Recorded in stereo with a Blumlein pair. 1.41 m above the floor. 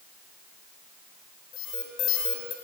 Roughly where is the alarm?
Ahead left.